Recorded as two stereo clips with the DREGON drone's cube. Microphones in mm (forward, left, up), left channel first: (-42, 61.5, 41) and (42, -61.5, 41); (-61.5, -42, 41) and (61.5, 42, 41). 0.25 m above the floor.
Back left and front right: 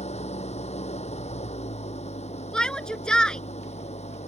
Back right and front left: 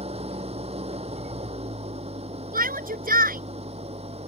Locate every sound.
0.0 s an engine running: 80° left
2.5 s a shout: 40° left